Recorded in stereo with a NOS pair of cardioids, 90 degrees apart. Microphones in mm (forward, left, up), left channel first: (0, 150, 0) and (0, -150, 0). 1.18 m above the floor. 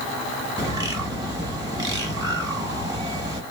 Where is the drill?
No drill in this recording.